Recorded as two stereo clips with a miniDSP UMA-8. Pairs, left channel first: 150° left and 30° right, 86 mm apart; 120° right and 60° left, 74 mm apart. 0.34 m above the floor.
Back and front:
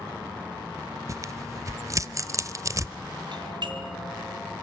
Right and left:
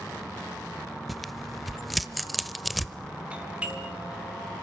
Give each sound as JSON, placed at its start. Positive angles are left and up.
{"t": 1.1, "sound": "tearing paper", "azimuth_deg": -30, "distance_m": 0.8}
{"t": 3.3, "sound": "a doorbell", "azimuth_deg": -10, "distance_m": 3.5}